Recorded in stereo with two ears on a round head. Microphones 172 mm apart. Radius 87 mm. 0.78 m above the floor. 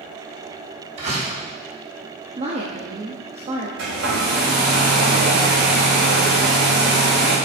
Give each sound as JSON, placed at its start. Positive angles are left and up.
{"t": 1.0, "sound": "a door slam", "side_deg": -35, "distance_m": 4.5}
{"t": 2.4, "sound": "a woman speaking", "side_deg": -30, "distance_m": 1.1}
{"t": 3.8, "sound": "a hair dryer", "side_deg": -60, "distance_m": 4.0}